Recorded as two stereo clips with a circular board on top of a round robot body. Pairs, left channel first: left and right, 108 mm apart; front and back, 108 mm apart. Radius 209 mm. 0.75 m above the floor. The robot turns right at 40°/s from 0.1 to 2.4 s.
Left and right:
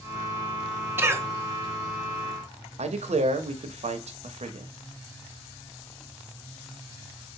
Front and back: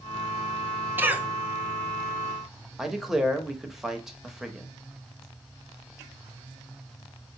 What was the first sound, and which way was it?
A cough, 130° right.